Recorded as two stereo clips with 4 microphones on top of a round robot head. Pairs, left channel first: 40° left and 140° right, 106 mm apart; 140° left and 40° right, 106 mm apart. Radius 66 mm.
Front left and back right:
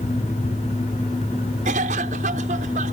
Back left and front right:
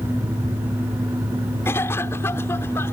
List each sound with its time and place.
1.6 s a cough: 150° right